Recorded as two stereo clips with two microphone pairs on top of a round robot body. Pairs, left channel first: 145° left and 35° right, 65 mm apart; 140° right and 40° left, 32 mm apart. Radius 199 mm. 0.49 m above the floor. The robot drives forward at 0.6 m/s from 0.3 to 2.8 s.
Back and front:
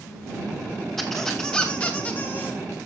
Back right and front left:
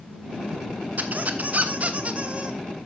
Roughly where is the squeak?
Ahead left.